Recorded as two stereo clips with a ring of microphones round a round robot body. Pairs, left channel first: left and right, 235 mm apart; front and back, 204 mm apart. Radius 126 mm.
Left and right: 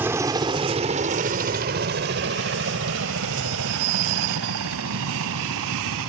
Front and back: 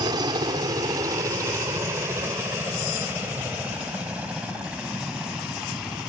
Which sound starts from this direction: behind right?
A helicopter, at 0.0 s.